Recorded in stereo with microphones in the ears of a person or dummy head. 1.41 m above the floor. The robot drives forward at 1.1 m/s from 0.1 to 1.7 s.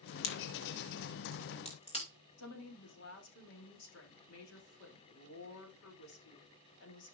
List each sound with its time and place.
0.2 s a crack: 75° left (ahead or behind), 1.5 m; by 2.0 s 35° left (ahead or behind), 2.5 m
2.4 s a woman speaking: 80° left, 3 m